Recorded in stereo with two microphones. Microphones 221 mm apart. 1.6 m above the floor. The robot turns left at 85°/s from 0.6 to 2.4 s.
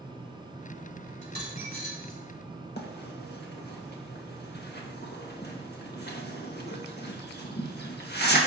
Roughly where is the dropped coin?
Right.